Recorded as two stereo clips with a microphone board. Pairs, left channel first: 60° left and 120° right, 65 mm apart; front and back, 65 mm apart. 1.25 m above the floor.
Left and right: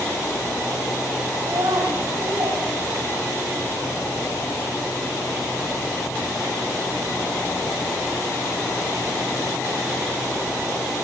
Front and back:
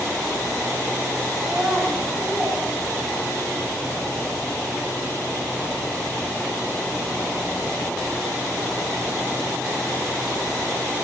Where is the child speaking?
95° right, 4.5 m.